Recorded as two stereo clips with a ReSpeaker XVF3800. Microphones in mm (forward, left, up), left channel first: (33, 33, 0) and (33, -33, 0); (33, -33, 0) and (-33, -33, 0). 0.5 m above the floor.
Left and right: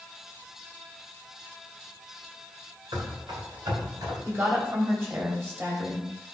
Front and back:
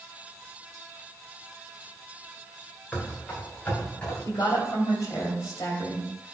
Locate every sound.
2.9 s running footsteps: 70° right, 3.5 m; by 4.2 s 65° right, 5 m
4.2 s a woman speaking: 35° right, 3 m